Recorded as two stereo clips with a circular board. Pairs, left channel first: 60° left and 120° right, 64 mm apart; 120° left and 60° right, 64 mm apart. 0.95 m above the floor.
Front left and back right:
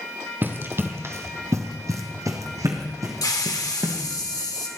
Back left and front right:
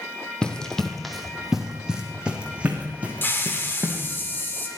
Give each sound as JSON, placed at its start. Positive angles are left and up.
{"t": 0.4, "sound": "running footsteps", "azimuth_deg": -165, "distance_m": 1.6}
{"t": 3.2, "sound": "a hiss", "azimuth_deg": 65, "distance_m": 2.0}